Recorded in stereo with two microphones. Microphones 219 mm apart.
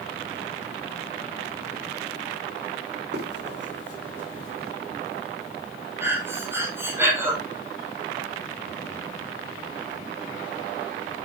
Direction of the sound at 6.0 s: 10° right (ahead or behind).